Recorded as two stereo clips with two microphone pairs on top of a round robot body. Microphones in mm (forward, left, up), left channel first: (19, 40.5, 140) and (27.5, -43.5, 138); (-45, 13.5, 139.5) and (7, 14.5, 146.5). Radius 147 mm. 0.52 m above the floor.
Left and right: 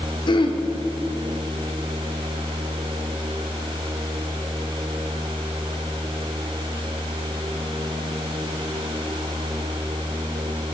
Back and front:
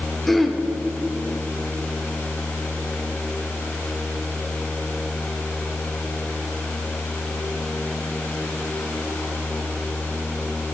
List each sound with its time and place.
0.3 s throat clearing: 95° left, 1.4 m